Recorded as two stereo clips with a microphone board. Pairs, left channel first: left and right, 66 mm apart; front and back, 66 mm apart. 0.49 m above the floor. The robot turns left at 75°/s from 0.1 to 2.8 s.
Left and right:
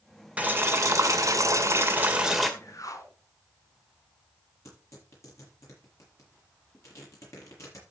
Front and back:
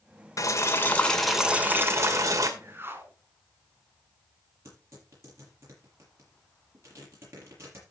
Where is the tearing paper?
130° left, 7.5 m.